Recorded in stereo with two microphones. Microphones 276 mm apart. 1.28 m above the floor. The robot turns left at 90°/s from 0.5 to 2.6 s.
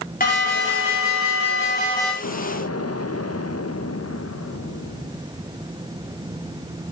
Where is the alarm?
150° left, 5.5 m; by 2.1 s straight ahead, 5.5 m.